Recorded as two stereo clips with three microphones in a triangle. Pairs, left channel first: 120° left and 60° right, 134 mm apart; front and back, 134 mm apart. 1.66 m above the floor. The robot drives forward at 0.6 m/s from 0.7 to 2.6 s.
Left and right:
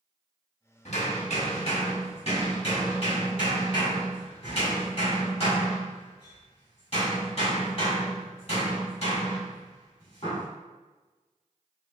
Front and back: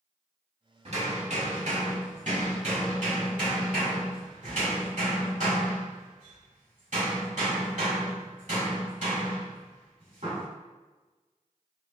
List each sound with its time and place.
0.8 s hammering: 150° left, 1.4 m; by 10.4 s 165° left, 2.5 m